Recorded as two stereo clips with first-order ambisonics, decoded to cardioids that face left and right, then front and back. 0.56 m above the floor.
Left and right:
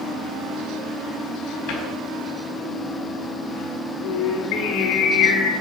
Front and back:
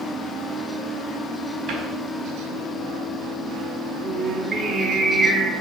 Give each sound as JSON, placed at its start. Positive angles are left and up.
{"t": 1.7, "sound": "a cupboard door", "azimuth_deg": 125, "distance_m": 4.0}
{"t": 4.0, "sound": "singing", "azimuth_deg": 110, "distance_m": 5.5}